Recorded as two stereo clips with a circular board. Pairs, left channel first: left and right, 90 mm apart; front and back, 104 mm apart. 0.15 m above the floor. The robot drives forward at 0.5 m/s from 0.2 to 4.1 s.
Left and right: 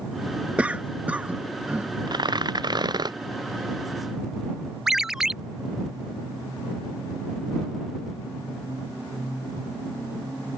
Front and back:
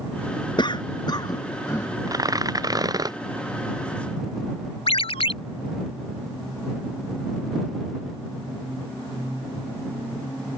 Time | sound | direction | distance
0.6 | a cough | 20° right | ?
2.1 | tearing paper | 125° right | ?
4.9 | a ringtone | 5° right | ?